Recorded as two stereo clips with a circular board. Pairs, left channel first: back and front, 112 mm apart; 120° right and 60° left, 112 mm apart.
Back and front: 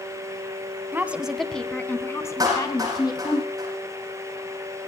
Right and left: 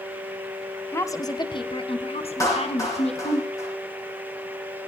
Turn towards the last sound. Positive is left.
turn(degrees=-60)